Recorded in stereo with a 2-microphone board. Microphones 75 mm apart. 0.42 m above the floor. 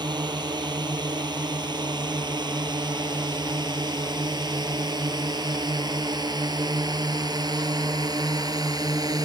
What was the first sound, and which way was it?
A drone, 85° right.